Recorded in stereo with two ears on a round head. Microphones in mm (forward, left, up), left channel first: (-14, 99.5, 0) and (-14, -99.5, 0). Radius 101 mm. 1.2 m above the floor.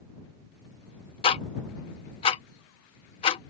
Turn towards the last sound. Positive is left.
turn(degrees=25)  # may be behind; listen again after turning